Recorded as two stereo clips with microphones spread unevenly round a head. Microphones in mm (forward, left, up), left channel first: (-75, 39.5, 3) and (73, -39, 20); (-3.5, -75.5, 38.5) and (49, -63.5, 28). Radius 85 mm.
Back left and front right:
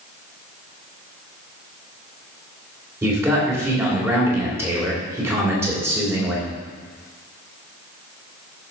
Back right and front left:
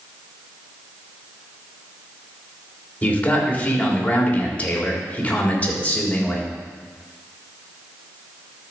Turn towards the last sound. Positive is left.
turn(degrees=-105)